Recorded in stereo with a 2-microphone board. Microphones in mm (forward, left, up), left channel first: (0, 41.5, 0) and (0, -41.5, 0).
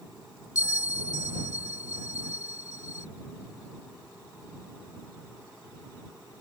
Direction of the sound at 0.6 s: 40° left (ahead or behind).